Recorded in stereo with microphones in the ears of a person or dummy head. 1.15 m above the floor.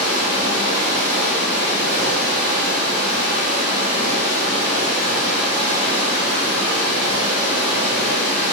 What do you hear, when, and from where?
0.0 s running water: 5° left (ahead or behind), 1.1 m